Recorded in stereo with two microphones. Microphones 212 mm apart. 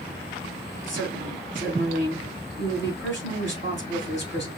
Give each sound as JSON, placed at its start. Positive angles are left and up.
{"t": 0.9, "sound": "a woman speaking", "side_deg": 60, "distance_m": 4.5}